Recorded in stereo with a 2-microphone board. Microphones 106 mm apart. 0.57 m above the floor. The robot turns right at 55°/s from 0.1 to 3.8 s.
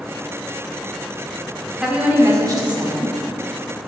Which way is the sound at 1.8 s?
175° right.